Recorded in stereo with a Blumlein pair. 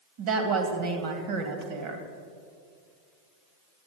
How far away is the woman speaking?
About 1.9 m.